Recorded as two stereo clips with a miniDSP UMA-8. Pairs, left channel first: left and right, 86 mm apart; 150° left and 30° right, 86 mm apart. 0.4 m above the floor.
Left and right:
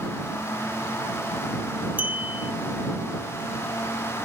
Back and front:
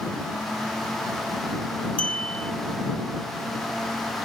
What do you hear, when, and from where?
2.0 s a clink: 145° right